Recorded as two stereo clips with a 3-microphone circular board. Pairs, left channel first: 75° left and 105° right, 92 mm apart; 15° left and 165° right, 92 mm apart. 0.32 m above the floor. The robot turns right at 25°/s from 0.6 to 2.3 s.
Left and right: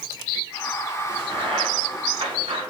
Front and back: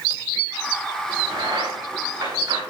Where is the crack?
150° right, 6.5 m; by 2.6 s 120° right, 6.5 m.